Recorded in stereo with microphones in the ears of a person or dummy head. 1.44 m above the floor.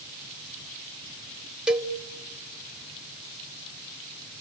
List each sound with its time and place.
1.7 s a cowbell: centre (ahead or behind), 0.8 m